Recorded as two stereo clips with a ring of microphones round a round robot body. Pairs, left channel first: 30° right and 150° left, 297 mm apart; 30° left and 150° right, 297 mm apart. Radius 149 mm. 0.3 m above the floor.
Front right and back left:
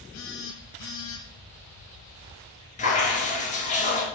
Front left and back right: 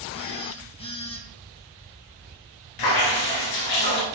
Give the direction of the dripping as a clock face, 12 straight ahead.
11 o'clock.